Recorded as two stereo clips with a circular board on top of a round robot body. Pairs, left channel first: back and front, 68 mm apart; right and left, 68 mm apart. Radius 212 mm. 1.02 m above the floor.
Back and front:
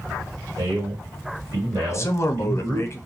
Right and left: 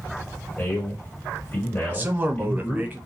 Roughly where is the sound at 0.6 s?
Ahead right.